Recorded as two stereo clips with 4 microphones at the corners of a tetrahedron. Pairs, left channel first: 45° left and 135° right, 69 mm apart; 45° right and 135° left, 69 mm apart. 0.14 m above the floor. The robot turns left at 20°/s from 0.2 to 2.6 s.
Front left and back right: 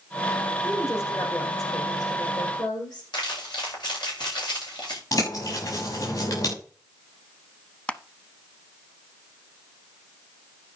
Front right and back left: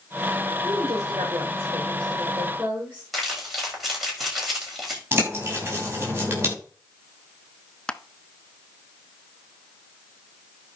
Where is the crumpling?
45° left, 8 m.